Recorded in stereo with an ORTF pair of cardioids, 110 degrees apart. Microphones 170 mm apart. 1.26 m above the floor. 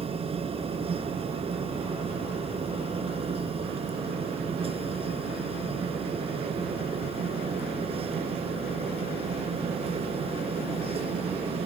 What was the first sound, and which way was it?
A machine running, 35° right.